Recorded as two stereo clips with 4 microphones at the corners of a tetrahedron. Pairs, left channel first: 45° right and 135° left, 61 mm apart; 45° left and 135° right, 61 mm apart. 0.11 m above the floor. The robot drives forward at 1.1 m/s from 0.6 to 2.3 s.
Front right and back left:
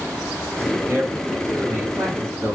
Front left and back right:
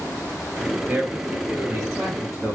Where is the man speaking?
170° left, 2.5 m; by 2.6 s 175° left, 3.5 m.